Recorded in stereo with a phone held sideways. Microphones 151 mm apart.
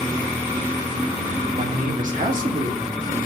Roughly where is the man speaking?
Right.